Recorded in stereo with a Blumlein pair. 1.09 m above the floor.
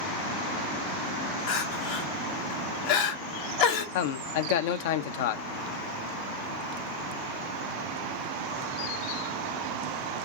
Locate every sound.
1.5 s crying: 45° left, 0.8 m
4.0 s a man speaking: 50° left, 0.5 m